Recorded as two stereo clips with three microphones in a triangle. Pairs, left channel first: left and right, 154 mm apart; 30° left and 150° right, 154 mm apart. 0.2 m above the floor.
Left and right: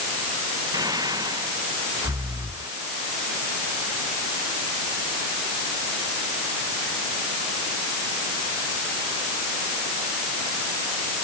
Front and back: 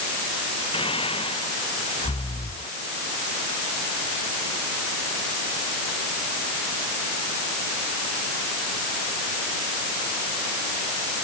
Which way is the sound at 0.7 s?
25° right.